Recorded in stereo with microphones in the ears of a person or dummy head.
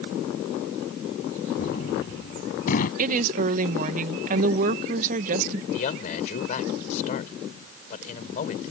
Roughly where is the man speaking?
Left.